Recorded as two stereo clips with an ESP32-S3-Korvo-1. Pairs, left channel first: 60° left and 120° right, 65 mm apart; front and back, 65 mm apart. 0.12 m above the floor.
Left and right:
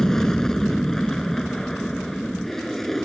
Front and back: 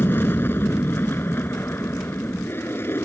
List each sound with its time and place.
0.0 s an aircraft: 15° right; by 3.0 s 25° right